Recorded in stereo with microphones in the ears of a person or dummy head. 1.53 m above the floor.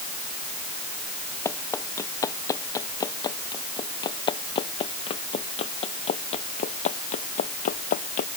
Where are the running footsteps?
10° left (ahead or behind); by 8.3 s 40° left (ahead or behind).